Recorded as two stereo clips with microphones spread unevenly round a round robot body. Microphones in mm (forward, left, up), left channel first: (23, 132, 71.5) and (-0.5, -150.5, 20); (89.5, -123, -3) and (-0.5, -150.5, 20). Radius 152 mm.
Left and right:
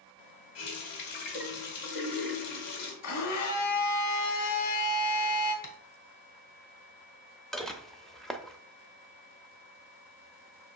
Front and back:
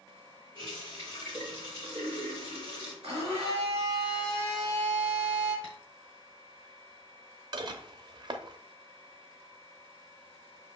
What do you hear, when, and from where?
0.6 s a running tap: 85° left, 2 m
3.0 s a blender: 120° left, 2.5 m
5.6 s tapping: 105° left, 1.2 m
7.5 s dishes clattering: 170° right, 0.6 m